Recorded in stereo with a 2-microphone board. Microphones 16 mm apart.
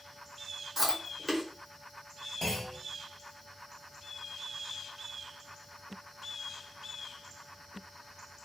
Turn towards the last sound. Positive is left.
turn(degrees=45)  # may be behind; listen again after turning